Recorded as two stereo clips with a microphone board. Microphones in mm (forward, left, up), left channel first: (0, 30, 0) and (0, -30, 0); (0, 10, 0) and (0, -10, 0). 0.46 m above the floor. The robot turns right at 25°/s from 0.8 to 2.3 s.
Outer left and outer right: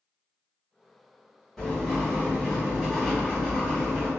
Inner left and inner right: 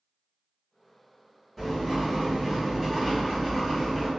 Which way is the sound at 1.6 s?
5° left (ahead or behind).